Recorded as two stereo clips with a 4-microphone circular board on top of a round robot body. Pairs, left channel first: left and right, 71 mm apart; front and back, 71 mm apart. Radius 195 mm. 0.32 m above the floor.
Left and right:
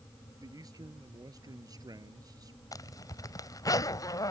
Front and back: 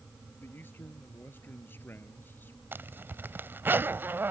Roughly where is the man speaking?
Ahead right.